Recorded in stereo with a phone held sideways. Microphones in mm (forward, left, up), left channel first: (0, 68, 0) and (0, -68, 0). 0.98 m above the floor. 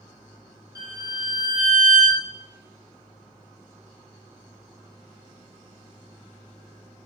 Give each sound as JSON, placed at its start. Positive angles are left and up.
{"t": 0.8, "sound": "a violin", "side_deg": -25, "distance_m": 0.9}